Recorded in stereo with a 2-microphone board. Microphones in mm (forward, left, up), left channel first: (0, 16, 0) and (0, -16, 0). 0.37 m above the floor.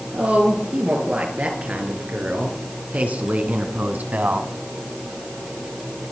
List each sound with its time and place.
0.1 s a woman speaking: 60° right (ahead or behind), 6.5 m; by 4.5 s 65° right (ahead or behind), 2 m